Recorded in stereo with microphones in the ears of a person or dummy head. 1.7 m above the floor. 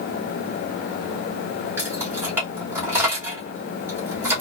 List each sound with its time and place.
1.8 s keys jangling: 10° right (ahead or behind), 1.3 m